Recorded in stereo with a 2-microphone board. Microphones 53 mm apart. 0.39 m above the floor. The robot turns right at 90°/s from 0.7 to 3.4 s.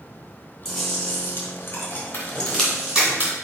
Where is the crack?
55° left (ahead or behind), 2 m; by 3.4 s 50° right (ahead or behind), 2 m.